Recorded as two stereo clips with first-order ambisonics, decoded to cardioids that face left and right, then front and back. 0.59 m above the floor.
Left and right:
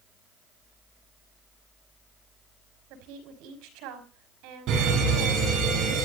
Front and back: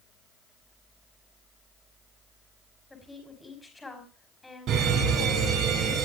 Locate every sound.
2.9 s a woman speaking: 80° right, 5 m
4.7 s a fire alarm: 135° right, 8.5 m